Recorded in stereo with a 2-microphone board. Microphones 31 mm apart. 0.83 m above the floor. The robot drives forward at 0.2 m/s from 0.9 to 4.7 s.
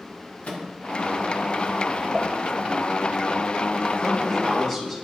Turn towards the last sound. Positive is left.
turn(degrees=15)  # may be behind; listen again after turning